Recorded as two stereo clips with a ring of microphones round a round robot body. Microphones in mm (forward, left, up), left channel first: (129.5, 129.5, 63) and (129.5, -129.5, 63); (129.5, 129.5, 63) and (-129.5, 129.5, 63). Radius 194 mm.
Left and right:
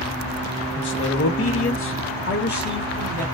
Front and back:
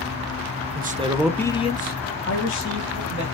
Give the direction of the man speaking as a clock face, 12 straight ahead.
8 o'clock.